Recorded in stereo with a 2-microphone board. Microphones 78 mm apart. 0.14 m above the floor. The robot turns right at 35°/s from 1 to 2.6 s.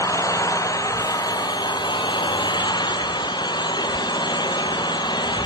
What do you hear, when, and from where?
0.0 s an engine running: 50° left, 1.5 m; by 5.5 s 105° left, 1.5 m